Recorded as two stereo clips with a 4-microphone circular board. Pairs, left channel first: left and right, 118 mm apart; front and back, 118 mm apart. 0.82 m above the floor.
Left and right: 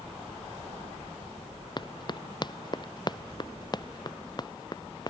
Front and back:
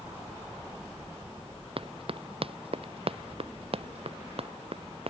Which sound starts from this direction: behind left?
Running footsteps, at 1.8 s.